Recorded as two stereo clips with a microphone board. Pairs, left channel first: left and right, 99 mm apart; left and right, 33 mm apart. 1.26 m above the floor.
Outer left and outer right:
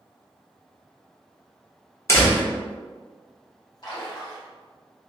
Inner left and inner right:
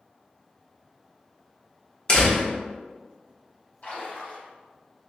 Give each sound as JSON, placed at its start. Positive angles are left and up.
{"t": 2.1, "sound": "a door slam", "side_deg": 30, "distance_m": 1.1}
{"t": 3.8, "sound": "a splash", "side_deg": 45, "distance_m": 1.5}